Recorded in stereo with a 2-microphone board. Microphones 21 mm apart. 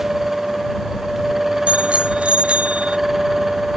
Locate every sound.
1.7 s a bicycle bell: 70° right (ahead or behind); by 3.0 s 75° right (ahead or behind)